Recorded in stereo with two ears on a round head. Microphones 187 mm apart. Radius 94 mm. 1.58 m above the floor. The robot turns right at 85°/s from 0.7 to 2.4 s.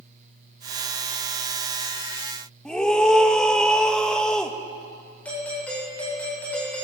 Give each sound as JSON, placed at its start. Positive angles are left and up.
{"t": 2.6, "sound": "a scream", "side_deg": 5, "distance_m": 1.7}
{"t": 5.2, "sound": "a doorbell", "side_deg": 5, "distance_m": 9.5}